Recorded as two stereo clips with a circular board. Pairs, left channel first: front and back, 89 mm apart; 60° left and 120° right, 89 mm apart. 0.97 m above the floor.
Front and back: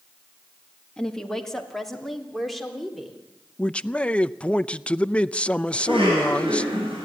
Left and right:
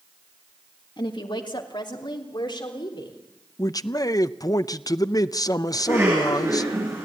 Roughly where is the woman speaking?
Left.